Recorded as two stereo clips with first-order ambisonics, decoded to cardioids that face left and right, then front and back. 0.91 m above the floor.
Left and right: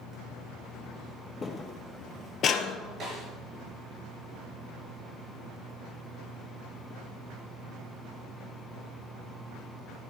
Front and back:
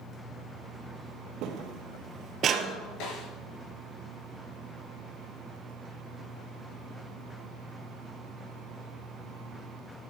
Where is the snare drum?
30° right, 4.5 m.